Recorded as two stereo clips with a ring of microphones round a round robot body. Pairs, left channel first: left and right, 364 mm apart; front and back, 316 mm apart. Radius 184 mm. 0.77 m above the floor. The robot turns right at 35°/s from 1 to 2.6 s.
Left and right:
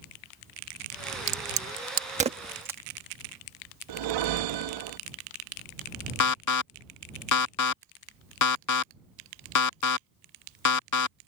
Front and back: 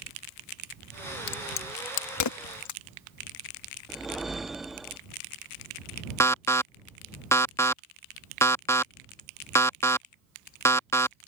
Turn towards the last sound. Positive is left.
turn(degrees=80)